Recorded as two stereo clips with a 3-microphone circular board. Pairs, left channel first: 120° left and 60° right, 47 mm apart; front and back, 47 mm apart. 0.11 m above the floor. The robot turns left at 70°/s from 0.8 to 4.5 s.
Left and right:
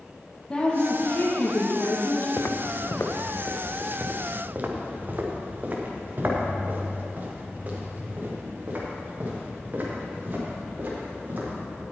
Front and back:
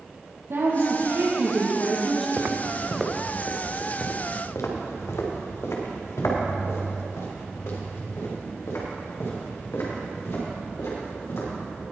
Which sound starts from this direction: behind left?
Footsteps, at 2.4 s.